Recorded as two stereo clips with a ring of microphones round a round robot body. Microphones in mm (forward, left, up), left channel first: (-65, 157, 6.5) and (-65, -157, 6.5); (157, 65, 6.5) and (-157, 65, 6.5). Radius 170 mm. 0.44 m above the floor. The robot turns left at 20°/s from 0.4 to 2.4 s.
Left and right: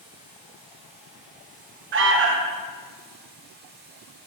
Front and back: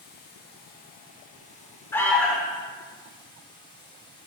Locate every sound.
0.0 s running water: 25° right, 1.1 m; by 4.3 s 65° right, 1.1 m
1.9 s an alarm: 75° right, 0.5 m; by 2.6 s 85° right, 0.5 m